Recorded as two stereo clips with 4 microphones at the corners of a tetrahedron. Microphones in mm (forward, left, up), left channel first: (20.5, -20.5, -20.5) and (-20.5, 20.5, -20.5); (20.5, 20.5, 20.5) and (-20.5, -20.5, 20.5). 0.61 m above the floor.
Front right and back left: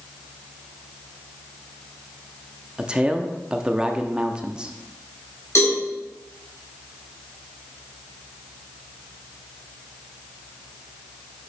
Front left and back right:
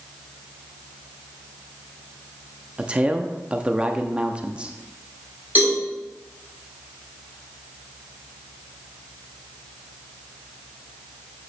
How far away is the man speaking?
About 0.6 m.